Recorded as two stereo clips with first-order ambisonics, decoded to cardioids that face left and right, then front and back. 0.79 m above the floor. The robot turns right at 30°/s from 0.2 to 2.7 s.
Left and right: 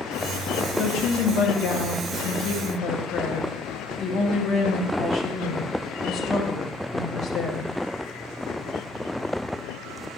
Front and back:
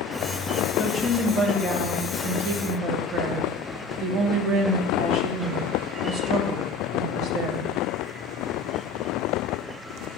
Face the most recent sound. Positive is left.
turn(degrees=145)